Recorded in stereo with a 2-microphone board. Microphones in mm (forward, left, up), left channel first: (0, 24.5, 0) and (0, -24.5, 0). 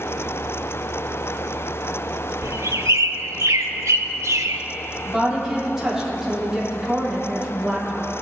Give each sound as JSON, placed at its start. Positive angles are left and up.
{"t": 2.4, "sound": "a bird", "side_deg": -75, "distance_m": 0.5}
{"t": 5.0, "sound": "a woman speaking", "side_deg": -10, "distance_m": 3.0}